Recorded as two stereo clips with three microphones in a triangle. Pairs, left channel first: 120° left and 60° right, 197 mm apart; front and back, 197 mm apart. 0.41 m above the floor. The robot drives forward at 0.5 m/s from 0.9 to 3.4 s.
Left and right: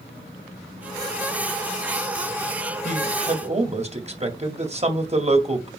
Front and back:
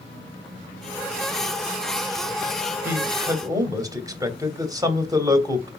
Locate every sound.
2.9 s a man speaking: 105° right, 2.0 m; by 5.7 s 110° right, 2 m